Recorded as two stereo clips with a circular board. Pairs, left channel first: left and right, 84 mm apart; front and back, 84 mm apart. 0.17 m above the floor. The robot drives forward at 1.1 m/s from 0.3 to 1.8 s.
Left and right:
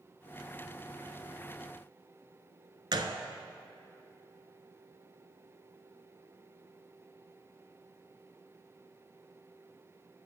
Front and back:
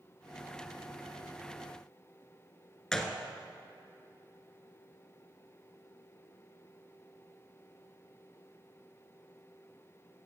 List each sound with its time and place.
2.9 s a gunshot: 80° right, 0.7 m